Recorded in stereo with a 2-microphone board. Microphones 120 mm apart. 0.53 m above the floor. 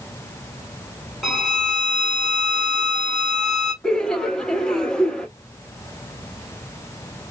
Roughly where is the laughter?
Centre.